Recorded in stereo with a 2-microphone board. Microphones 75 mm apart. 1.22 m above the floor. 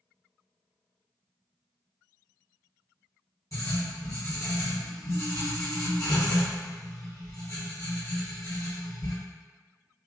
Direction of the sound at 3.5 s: 50° left (ahead or behind).